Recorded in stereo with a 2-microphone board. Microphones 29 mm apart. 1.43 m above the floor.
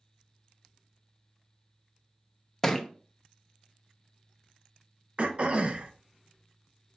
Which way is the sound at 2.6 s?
10° left (ahead or behind).